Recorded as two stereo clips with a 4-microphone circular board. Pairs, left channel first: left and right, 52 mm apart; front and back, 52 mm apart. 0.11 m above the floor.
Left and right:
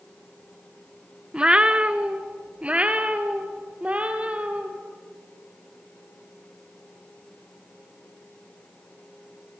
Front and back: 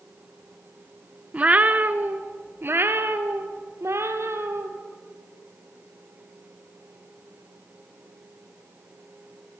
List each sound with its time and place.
1.3 s a cat meowing: 140° right, 0.9 m; by 4.7 s 155° right, 2.5 m